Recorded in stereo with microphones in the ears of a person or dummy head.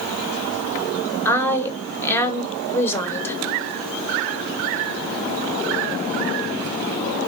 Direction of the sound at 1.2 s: 15° left (ahead or behind).